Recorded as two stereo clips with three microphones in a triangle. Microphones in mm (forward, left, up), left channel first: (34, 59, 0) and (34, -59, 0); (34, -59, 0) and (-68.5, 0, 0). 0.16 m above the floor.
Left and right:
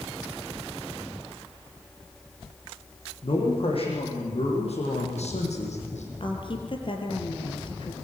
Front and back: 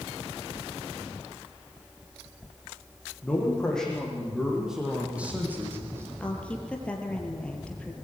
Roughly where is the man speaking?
Ahead left.